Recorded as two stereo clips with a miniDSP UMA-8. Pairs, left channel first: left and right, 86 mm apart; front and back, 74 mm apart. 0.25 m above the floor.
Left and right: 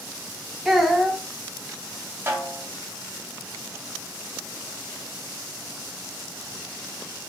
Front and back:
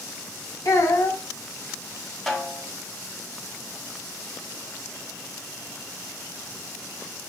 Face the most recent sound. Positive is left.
turn(degrees=-80)